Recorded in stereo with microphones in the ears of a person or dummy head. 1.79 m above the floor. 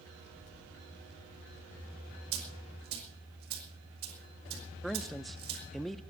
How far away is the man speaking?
About 0.5 m.